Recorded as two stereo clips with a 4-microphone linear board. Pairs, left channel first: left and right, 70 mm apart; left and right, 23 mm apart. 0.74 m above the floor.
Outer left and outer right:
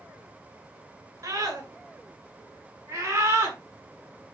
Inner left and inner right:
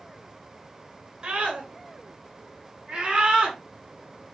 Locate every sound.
1.2 s a scream: 45° right (ahead or behind), 9 m; by 3.6 s 35° right (ahead or behind), 7 m